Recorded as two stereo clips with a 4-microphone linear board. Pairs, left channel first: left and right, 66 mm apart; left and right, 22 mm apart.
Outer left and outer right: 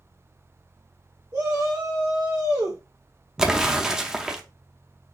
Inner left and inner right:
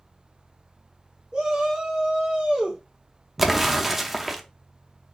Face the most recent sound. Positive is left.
turn(degrees=-10)  # may be behind; listen again after turning